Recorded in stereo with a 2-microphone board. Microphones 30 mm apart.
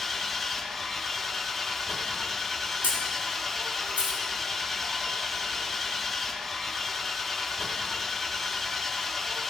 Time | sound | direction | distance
0.0 | an engine running | 5° left (ahead or behind) | 0.7 m
2.8 | a camera shutter | 80° right | 3 m